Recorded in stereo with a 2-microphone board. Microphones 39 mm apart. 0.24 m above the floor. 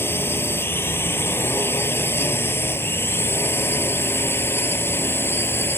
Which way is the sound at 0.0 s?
75° left (ahead or behind).